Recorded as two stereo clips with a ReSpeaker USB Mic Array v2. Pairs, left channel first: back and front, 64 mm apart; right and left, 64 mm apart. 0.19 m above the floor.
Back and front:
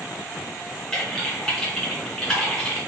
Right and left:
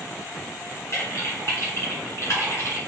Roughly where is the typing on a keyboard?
Right.